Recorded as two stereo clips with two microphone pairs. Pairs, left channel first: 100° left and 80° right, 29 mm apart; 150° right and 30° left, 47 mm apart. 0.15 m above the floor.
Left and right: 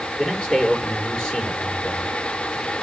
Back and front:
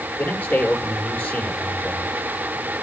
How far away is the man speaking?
About 4 m.